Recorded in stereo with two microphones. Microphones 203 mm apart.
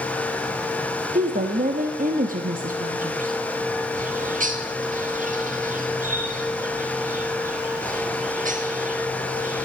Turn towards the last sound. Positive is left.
turn(degrees=-40)  # may be behind; listen again after turning